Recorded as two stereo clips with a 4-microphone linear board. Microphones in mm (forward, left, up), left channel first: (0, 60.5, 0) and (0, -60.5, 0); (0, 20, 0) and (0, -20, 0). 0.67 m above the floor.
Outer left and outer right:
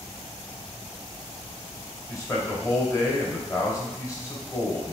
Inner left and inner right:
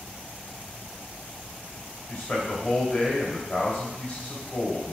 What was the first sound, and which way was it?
A man speaking, 25° left (ahead or behind).